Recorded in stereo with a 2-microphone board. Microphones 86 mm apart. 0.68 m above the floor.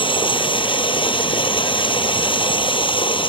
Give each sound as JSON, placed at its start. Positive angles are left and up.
{"t": 0.0, "sound": "running water", "side_deg": 75}